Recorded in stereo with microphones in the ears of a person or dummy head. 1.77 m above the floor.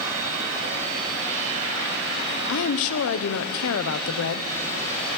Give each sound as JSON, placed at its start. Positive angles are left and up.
{"t": 2.5, "sound": "a woman speaking", "side_deg": 75, "distance_m": 1.1}